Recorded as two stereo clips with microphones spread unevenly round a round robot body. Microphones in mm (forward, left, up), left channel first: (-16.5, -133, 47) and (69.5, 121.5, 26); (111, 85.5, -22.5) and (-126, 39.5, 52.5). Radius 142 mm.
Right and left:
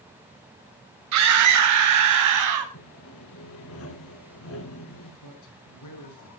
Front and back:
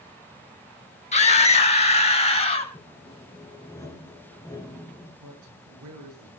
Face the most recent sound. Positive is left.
turn(degrees=-135)